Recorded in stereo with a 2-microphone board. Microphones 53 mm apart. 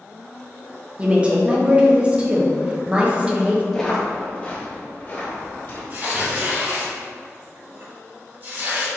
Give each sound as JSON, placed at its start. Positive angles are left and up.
{"t": 1.0, "sound": "a woman speaking", "side_deg": -20, "distance_m": 0.7}
{"t": 3.7, "sound": "footsteps", "side_deg": 10, "distance_m": 1.3}
{"t": 5.9, "sound": "tearing paper", "side_deg": -45, "distance_m": 1.4}